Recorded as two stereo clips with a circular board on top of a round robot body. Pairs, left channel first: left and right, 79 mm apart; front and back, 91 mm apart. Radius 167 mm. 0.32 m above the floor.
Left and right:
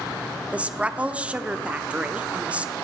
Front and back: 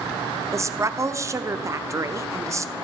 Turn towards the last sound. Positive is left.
turn(degrees=-150)